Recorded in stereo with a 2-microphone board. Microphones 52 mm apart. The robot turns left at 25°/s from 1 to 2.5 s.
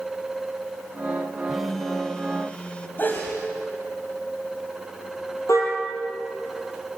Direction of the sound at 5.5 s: 65° left (ahead or behind).